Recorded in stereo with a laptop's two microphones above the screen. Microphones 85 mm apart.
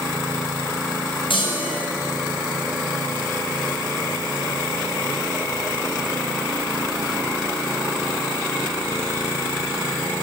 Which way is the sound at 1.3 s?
85° left.